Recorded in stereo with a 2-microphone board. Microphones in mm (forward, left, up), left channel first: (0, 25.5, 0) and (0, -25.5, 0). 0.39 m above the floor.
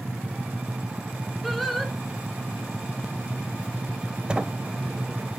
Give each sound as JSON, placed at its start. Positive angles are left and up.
{"t": 1.4, "sound": "singing", "side_deg": 0, "distance_m": 1.8}
{"t": 4.3, "sound": "a sliding door", "side_deg": -20, "distance_m": 0.7}